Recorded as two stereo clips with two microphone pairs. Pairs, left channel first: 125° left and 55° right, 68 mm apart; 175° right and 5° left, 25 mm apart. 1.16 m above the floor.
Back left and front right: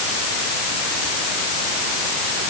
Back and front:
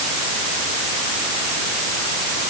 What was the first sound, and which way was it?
Only background noise.